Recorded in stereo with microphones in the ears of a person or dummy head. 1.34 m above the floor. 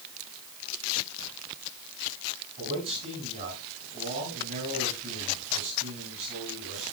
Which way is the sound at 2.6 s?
45° right (ahead or behind).